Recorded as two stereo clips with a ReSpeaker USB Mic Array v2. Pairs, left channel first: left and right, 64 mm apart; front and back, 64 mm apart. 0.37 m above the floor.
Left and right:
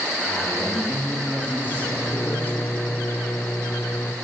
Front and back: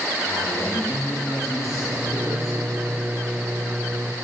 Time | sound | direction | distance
0.2 | a man speaking | 30° left | 9 m
1.7 | a microwave | 130° left | 1.0 m